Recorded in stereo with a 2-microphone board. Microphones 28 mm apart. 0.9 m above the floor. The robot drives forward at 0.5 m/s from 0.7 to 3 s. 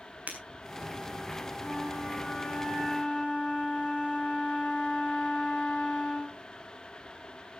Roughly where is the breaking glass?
Right.